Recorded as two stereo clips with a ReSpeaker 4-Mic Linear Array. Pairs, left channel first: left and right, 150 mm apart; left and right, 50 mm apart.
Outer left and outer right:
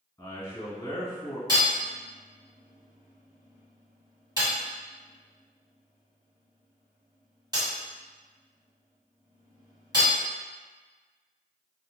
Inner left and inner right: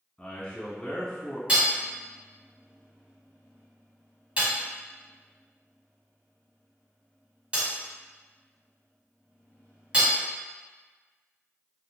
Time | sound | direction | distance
0.2 | a man speaking | 20° left (ahead or behind) | 1.9 m
1.5 | hammering | 25° right (ahead or behind) | 1.3 m